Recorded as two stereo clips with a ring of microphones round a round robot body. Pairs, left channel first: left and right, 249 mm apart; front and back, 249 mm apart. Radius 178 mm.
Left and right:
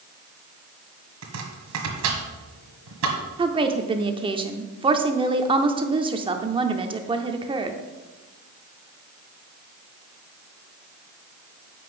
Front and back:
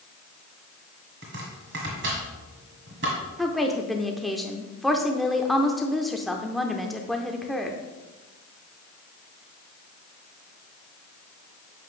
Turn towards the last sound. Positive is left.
turn(degrees=-90)